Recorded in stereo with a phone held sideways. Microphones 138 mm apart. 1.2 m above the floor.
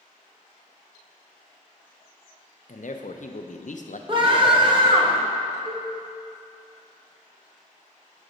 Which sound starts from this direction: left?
A man speaking, at 2.7 s.